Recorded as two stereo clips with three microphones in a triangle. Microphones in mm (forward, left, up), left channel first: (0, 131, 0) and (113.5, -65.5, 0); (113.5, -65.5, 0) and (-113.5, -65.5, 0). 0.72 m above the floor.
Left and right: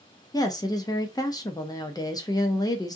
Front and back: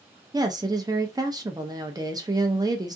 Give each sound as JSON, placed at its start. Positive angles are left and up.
{"t": 0.3, "sound": "a woman speaking", "azimuth_deg": 150, "distance_m": 0.6}